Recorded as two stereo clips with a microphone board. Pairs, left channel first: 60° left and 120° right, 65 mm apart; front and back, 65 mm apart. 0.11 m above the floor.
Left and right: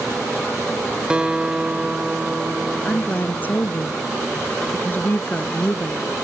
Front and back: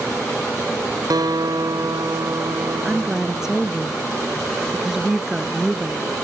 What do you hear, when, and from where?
1.1 s a guitar: 165° left
2.9 s a woman speaking: 100° left